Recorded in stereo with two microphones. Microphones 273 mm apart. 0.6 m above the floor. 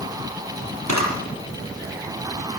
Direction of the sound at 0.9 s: 80° right.